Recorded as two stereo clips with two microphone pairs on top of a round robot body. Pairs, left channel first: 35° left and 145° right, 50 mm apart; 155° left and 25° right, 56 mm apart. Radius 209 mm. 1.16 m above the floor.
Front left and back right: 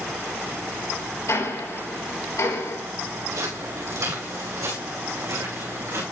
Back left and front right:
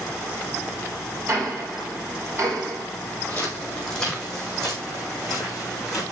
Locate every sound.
1.3 s ticking: 15° left, 6 m
3.3 s footsteps: 135° right, 3.5 m; by 6.0 s 120° right, 5 m